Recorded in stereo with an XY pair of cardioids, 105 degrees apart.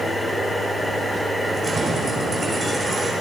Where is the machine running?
Straight ahead, 2.5 m.